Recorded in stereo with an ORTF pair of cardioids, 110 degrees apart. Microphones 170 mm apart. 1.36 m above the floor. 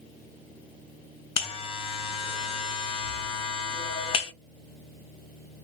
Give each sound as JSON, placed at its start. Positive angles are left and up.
{"t": 1.4, "sound": "a buzzer", "azimuth_deg": 35, "distance_m": 0.6}